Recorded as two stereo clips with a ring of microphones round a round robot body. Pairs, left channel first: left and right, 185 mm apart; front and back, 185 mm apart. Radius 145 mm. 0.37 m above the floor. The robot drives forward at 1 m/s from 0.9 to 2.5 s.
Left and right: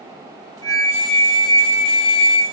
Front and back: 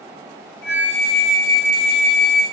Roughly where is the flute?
Ahead.